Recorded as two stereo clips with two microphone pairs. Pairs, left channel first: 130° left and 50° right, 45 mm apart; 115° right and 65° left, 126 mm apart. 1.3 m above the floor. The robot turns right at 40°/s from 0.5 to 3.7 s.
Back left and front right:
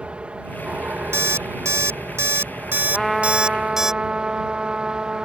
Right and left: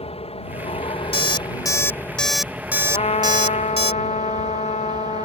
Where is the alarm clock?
75° right; by 3.9 s 30° left.